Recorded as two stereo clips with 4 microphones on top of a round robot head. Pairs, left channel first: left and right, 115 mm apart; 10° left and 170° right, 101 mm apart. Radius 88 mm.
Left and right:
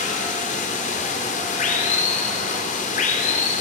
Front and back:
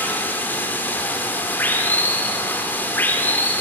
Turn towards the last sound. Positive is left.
turn(degrees=80)